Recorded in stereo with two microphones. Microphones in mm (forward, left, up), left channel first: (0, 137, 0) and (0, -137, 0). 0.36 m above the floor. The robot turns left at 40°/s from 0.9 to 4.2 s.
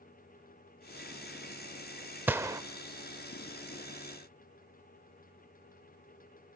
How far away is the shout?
No shout in this recording.